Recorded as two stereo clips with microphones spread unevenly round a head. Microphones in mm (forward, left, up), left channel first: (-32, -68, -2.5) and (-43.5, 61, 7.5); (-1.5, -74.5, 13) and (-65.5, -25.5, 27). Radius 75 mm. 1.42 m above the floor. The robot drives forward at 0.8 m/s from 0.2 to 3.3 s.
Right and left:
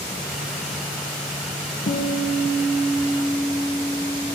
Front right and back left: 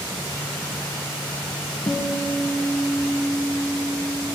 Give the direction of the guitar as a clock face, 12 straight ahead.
3 o'clock.